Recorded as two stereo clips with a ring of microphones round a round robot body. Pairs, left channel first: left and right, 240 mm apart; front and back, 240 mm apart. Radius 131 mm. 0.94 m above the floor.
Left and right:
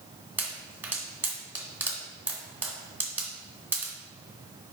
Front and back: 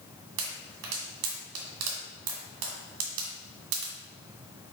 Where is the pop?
170° right, 1.9 m.